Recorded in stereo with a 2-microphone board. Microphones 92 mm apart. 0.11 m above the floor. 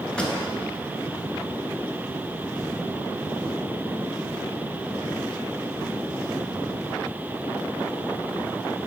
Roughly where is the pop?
Centre.